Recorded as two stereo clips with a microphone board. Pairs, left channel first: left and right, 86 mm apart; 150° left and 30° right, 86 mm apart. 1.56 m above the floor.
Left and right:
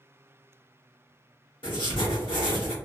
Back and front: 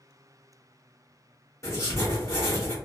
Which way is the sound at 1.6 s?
100° left.